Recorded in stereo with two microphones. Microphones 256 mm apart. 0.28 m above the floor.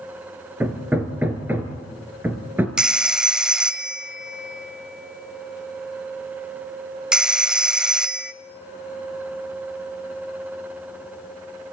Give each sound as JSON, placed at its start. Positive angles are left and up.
{"t": 0.6, "sound": "hammering", "side_deg": -10, "distance_m": 2.0}
{"t": 2.8, "sound": "a phone ringing", "side_deg": -5, "distance_m": 0.6}